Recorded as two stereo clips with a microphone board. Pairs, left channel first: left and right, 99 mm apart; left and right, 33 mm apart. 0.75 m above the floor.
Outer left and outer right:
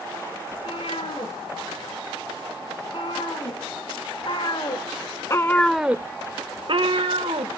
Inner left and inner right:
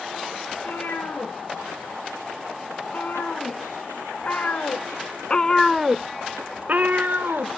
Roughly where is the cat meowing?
Left.